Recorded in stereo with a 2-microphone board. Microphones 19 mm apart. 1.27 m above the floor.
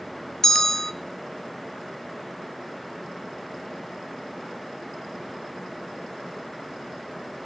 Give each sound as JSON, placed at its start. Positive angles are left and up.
{"t": 0.4, "sound": "a bell", "side_deg": 25, "distance_m": 0.7}